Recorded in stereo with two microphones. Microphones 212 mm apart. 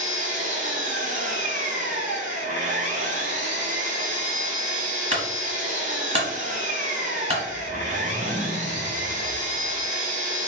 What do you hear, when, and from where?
0.0 s an engine running: 35° right (ahead or behind), 0.8 m
5.1 s a clunk: 30° right (ahead or behind), 1.1 m
7.4 s a whoosh: 5° left (ahead or behind), 0.6 m